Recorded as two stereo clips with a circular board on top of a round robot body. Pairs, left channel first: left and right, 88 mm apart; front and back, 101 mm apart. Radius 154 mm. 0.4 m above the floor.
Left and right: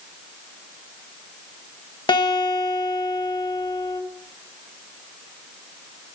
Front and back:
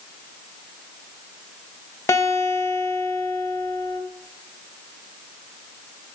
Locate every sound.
2.1 s a guitar: 60° left, 2.5 m